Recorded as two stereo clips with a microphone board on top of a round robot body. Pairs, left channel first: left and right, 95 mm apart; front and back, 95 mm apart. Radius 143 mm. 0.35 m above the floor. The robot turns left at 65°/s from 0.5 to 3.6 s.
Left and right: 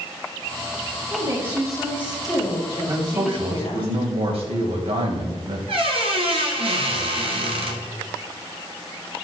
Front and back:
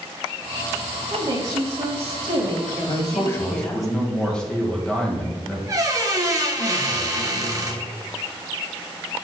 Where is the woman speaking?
140° right, 2.5 m; by 3.9 s 60° left, 2.5 m.